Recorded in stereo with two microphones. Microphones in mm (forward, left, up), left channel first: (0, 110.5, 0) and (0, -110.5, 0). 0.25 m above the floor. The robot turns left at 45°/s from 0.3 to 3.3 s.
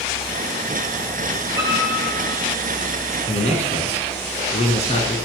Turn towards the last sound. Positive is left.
turn(degrees=30)  # may be behind; listen again after turning